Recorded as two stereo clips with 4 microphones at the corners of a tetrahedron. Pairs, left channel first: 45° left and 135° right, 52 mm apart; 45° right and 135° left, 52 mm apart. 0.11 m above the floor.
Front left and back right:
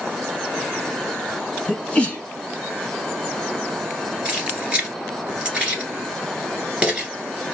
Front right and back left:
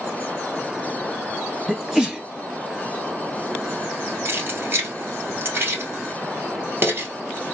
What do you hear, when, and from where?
1.7 s a sneeze: 75° left, 1.2 m
4.2 s keys jangling: 165° left, 1.7 m